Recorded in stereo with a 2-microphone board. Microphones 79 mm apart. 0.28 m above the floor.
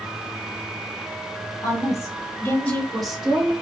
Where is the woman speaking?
45° left (ahead or behind), 1.8 m; by 3.5 s 20° right (ahead or behind), 1.3 m.